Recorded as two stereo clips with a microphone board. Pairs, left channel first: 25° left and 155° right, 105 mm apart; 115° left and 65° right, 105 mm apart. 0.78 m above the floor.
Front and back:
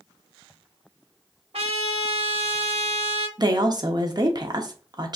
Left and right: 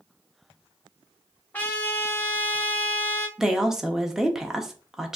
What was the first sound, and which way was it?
A trumpet, 175° right.